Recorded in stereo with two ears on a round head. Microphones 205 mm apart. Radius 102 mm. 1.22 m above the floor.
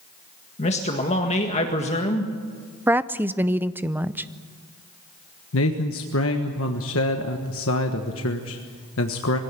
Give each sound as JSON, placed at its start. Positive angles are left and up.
{"t": 0.6, "sound": "a man speaking", "side_deg": 30, "distance_m": 1.7}
{"t": 2.9, "sound": "a woman speaking", "side_deg": -10, "distance_m": 0.6}
{"t": 5.5, "sound": "a man speaking", "side_deg": 65, "distance_m": 1.5}